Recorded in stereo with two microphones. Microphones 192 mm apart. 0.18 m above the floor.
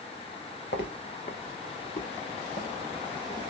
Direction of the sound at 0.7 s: 65° left (ahead or behind).